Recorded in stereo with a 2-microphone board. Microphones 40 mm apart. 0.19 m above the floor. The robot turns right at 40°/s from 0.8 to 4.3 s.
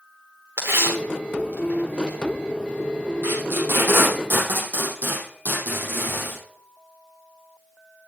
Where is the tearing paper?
80° right, 5 m; by 2.2 s 25° right (ahead or behind), 5 m.